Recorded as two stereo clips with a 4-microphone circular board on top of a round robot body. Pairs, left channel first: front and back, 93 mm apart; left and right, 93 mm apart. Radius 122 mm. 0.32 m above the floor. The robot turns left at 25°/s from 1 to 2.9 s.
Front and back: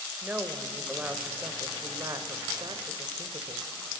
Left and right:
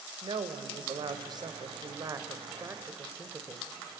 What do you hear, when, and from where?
0.2 s a woman speaking: 110° right, 1.6 m; by 3.7 s 155° right, 1.6 m